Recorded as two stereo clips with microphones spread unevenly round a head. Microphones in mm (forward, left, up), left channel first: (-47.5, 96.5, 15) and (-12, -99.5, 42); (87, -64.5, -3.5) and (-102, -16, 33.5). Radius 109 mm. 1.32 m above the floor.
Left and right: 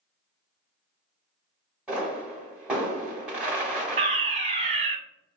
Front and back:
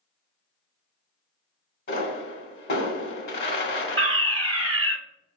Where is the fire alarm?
125° right, 0.9 m.